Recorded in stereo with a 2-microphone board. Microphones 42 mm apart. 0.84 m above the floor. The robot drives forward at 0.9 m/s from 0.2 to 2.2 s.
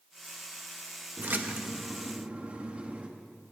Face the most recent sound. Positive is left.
turn(degrees=-30)  # may be behind; listen again after turning